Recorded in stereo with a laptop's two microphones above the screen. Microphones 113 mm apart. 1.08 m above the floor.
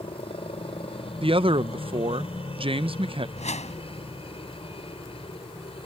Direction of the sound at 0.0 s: 55° left (ahead or behind).